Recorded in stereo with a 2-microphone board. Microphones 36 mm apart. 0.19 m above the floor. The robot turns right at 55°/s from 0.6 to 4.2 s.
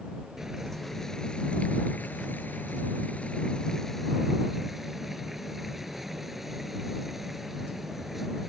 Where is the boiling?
10° right; by 8.5 s 170° right.